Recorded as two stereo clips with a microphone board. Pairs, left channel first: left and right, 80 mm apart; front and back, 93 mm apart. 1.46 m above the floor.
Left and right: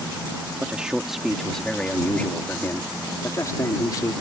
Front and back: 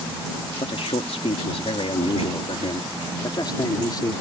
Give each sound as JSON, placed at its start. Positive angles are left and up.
{"t": 0.6, "sound": "a man speaking", "azimuth_deg": -15}